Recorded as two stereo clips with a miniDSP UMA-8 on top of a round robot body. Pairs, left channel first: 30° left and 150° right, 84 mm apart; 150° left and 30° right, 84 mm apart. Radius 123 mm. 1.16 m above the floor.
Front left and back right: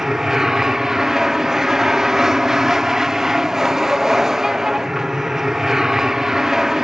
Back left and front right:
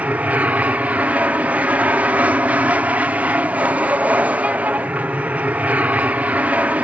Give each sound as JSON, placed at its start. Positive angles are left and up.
{"t": 0.0, "sound": "an aircraft", "azimuth_deg": -75}